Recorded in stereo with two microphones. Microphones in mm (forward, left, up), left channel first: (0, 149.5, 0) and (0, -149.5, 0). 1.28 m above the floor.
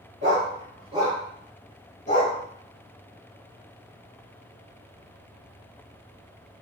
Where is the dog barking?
40° right (ahead or behind), 1.1 m; by 2.4 s 30° left (ahead or behind), 1.1 m.